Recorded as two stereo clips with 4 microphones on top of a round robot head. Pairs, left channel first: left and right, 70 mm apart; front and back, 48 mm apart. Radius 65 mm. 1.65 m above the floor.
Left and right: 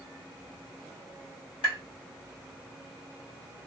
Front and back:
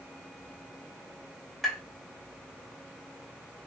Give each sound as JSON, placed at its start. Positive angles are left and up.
{"t": 1.6, "sound": "tapping", "azimuth_deg": 85, "distance_m": 1.8}